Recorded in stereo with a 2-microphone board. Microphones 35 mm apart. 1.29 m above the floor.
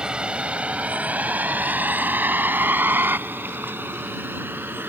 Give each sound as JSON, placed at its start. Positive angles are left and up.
{"t": 0.0, "sound": "a vehicle", "side_deg": -25}